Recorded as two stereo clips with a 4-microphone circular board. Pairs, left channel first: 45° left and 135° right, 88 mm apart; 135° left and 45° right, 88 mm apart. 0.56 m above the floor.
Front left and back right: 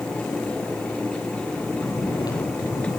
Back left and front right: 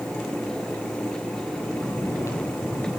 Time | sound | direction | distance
1.7 | snoring | 80° left | 9.5 m